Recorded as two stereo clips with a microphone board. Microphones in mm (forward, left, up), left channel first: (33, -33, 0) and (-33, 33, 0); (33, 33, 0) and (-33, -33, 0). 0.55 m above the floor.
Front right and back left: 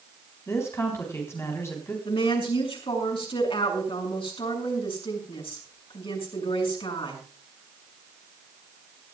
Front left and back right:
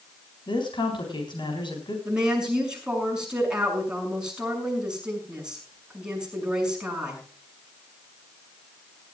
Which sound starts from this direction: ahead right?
A woman speaking, at 2.0 s.